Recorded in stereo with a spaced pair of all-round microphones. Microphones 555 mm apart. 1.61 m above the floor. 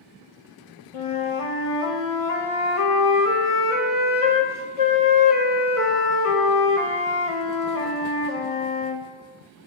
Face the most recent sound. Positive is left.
turn(degrees=70)  # may be behind; listen again after turning